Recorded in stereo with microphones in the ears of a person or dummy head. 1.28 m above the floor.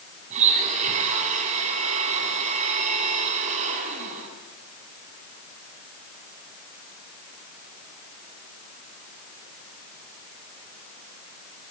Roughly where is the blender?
Right.